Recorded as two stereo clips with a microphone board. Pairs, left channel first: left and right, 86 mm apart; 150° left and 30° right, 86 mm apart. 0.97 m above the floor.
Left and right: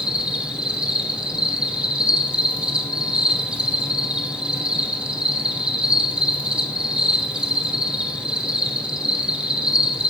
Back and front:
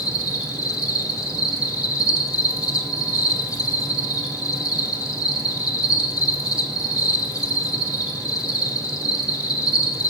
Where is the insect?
170° right, 1.1 m.